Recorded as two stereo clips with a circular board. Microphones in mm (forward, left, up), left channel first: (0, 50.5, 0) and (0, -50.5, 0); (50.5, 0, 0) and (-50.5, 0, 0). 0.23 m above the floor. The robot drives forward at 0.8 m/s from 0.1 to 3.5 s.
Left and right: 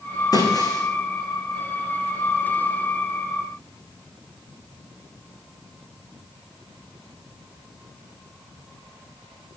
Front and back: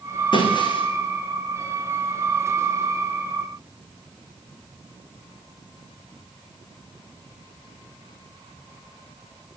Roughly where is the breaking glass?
Ahead left.